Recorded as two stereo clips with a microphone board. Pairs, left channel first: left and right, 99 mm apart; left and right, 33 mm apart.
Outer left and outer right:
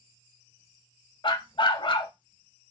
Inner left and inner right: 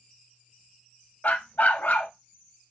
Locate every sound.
1.2 s a dog barking: 55° left (ahead or behind), 0.6 m